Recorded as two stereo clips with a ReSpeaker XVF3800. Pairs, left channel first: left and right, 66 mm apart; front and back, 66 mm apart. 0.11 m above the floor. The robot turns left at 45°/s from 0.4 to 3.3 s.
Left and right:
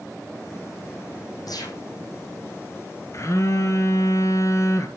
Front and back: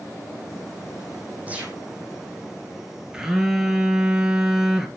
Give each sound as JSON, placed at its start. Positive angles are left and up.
{"t": 1.5, "sound": "a gunshot", "azimuth_deg": 115, "distance_m": 3.0}
{"t": 3.1, "sound": "a phone buzzing", "azimuth_deg": 105, "distance_m": 1.8}